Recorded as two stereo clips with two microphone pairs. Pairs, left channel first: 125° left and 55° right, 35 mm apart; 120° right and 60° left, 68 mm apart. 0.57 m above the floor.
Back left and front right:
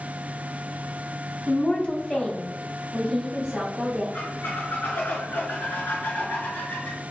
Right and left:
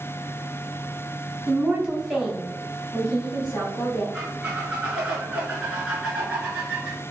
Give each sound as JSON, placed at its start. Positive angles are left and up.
{"t": 1.5, "sound": "a woman speaking", "azimuth_deg": 115, "distance_m": 1.4}
{"t": 4.1, "sound": "a squeak", "azimuth_deg": 135, "distance_m": 1.4}